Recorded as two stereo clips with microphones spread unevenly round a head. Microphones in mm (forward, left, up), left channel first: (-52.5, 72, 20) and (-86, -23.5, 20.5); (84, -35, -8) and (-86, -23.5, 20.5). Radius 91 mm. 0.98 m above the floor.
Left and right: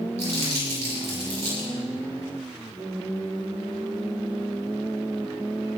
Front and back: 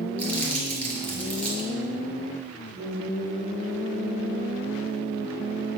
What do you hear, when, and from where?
0.2 s crumpling: 85° right, 6 m